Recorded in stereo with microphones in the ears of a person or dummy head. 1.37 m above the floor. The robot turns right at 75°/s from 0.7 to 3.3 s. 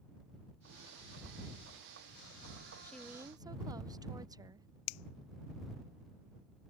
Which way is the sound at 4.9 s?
85° left.